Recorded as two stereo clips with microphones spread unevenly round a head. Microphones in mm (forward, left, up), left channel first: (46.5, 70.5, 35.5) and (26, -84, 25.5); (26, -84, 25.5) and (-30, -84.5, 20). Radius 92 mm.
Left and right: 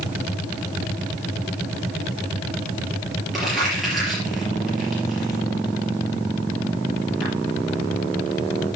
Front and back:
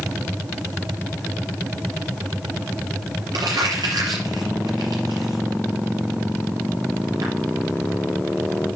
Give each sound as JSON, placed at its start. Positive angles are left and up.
{"t": 3.3, "sound": "crumpling", "azimuth_deg": 175, "distance_m": 4.5}